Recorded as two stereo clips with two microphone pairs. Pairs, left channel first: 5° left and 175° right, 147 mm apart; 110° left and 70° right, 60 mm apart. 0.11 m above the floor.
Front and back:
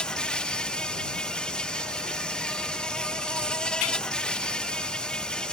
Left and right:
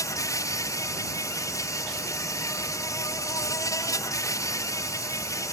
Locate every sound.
0.0 s an insect: 90° left